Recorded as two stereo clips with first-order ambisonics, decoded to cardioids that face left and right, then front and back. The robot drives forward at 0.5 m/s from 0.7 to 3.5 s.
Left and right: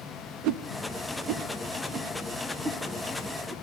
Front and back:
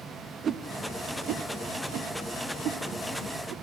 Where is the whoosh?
115° right, 0.6 m; by 3.5 s 160° right, 1.8 m.